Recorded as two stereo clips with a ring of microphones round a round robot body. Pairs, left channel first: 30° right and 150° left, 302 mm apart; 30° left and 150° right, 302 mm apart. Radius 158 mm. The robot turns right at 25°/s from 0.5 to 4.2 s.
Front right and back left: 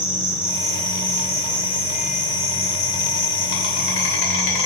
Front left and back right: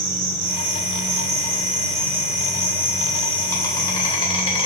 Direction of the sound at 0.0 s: 125° right.